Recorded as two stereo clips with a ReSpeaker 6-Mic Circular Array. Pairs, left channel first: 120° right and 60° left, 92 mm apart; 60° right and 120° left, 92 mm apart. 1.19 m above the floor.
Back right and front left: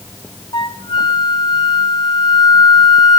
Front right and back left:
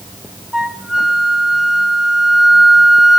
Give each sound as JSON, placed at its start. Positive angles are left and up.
{"t": 0.5, "sound": "a flute", "azimuth_deg": -155, "distance_m": 1.5}